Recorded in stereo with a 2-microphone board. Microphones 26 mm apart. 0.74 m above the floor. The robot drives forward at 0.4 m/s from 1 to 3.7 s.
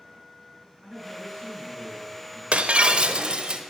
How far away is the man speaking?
About 8 m.